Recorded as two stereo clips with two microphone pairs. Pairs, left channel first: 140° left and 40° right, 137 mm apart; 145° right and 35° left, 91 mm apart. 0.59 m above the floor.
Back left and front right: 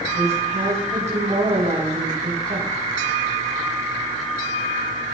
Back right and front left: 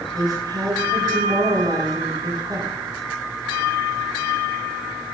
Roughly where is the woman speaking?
Ahead.